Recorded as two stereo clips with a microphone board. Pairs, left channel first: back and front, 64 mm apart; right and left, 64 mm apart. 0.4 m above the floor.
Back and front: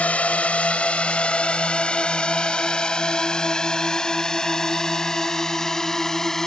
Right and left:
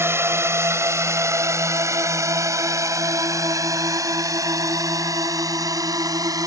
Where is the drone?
120° left; by 6.5 s 100° left.